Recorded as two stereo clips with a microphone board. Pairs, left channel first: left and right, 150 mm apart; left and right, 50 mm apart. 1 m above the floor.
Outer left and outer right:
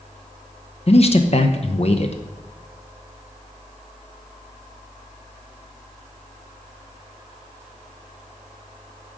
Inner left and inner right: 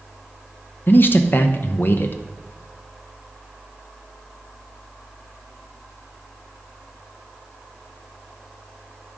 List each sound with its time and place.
0.9 s a man speaking: 50° left (ahead or behind), 0.8 m